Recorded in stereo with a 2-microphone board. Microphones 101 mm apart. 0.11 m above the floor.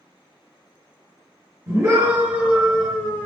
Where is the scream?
35° right (ahead or behind), 1.5 m; by 3.3 s 15° left (ahead or behind), 1.5 m.